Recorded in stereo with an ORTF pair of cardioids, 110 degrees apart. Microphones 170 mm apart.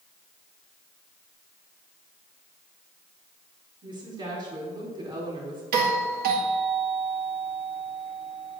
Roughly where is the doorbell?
Ahead right.